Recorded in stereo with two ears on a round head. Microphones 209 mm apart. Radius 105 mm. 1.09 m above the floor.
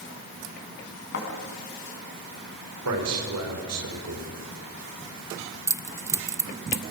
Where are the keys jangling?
15° right (ahead or behind), 0.6 m.